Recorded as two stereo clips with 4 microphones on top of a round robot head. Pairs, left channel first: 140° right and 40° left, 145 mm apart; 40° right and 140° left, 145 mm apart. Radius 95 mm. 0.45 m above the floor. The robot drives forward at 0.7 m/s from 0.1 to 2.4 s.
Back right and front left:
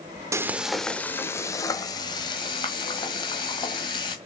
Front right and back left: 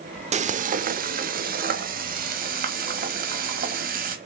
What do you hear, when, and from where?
0.3 s frying: 110° left, 0.7 m; by 4.2 s 160° left, 1.8 m